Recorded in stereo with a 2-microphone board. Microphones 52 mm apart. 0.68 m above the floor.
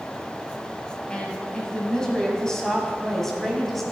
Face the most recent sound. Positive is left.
turn(degrees=5)  # may be behind; listen again after turning